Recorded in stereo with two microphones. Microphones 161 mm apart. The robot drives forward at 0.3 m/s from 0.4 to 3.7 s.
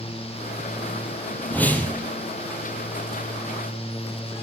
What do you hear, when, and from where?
1.5 s a whoosh: 10° left (ahead or behind), 4 m